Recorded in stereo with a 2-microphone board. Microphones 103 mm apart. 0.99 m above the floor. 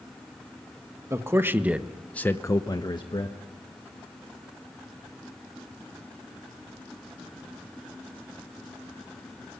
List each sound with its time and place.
1.1 s a man speaking: 30° right (ahead or behind), 1.5 m; by 3.4 s 50° left (ahead or behind), 1.6 m